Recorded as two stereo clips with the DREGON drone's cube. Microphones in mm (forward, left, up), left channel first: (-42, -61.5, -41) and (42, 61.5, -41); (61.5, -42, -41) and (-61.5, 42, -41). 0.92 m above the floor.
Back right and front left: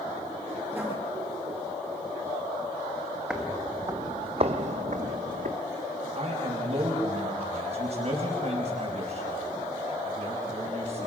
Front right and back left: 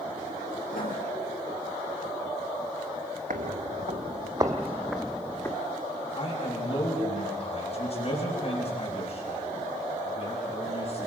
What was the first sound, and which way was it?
Writing, 25° right.